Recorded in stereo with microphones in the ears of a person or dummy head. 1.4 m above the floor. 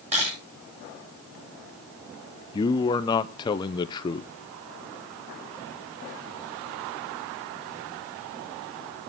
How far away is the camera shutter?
About 9 m.